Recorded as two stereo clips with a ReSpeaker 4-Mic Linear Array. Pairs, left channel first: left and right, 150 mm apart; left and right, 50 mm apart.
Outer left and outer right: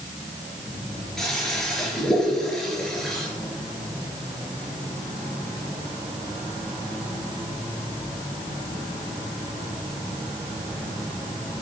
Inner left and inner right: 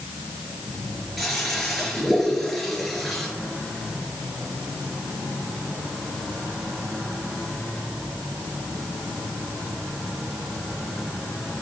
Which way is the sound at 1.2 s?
5° left (ahead or behind).